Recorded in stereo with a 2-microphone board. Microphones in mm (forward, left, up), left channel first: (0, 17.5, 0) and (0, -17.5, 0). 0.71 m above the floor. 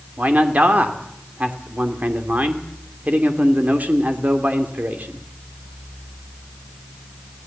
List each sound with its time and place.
0.2 s a man speaking: 50° right (ahead or behind), 2.5 m